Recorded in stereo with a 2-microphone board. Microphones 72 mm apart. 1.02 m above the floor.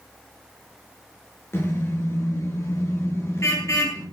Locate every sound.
1.5 s a car horn: 40° left (ahead or behind), 9 m; by 4.0 s 45° left (ahead or behind), 11 m